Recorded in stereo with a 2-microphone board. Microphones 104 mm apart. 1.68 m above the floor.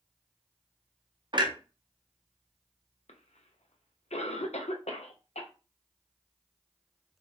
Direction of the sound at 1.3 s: 45° right (ahead or behind).